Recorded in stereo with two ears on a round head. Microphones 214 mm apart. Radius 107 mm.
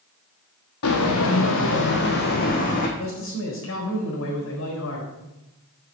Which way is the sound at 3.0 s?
55° left (ahead or behind).